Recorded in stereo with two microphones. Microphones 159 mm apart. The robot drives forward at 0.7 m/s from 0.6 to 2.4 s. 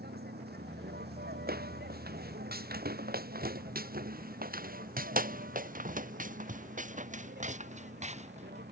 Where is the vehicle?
85° right.